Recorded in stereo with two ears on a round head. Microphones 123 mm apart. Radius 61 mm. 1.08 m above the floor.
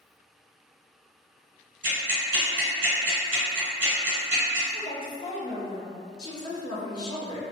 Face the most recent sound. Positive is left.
turn(degrees=30)  # may be behind; listen again after turning